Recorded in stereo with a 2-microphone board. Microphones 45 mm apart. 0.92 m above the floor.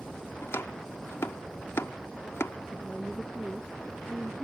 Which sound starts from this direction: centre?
A woman speaking, at 2.7 s.